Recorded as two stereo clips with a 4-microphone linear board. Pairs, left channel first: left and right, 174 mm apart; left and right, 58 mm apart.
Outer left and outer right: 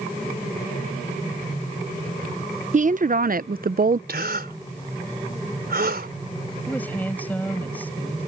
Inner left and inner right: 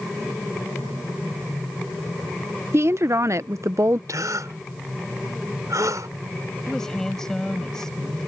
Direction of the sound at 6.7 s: 10° left (ahead or behind).